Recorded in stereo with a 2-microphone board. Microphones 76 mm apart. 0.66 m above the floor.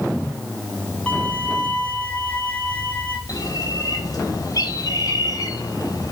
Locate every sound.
1.1 s a violin: 15° left (ahead or behind), 3.5 m
3.3 s a bird: 55° left (ahead or behind), 4 m